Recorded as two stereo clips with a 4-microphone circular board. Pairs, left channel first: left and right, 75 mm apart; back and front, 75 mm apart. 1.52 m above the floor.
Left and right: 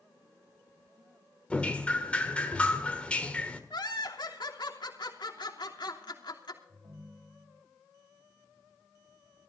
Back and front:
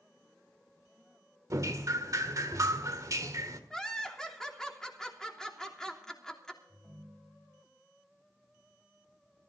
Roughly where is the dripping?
Ahead.